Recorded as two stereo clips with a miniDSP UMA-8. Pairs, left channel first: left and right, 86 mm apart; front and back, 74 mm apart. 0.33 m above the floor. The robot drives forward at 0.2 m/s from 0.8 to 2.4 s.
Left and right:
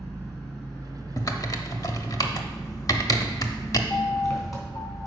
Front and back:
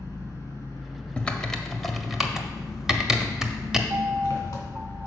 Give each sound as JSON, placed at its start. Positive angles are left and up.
{"t": 0.0, "sound": "an engine running", "azimuth_deg": 35, "distance_m": 2.5}
{"t": 1.2, "sound": "typing on a keyboard", "azimuth_deg": 70, "distance_m": 0.6}
{"t": 3.9, "sound": "a piano", "azimuth_deg": 120, "distance_m": 0.6}